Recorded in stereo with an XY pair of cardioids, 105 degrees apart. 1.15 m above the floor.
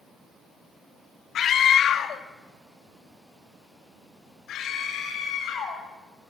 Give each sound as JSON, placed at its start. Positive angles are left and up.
{"t": 1.4, "sound": "a scream", "azimuth_deg": 60, "distance_m": 1.5}